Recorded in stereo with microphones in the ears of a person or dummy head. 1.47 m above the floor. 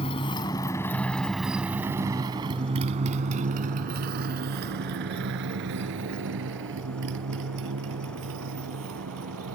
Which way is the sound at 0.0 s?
30° left (ahead or behind).